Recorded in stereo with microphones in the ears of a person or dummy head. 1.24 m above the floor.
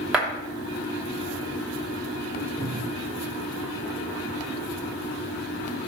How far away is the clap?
About 2.5 m.